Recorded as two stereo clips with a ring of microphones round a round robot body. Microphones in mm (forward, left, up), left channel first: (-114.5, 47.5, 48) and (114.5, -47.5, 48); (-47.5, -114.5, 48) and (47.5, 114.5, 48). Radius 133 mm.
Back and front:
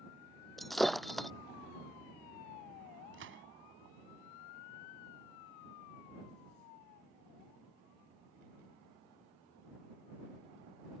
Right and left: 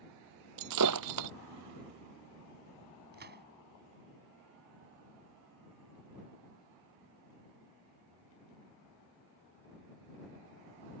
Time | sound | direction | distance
0.6 | breaking glass | 70° left | ?
3.1 | a gunshot | 20° left | ?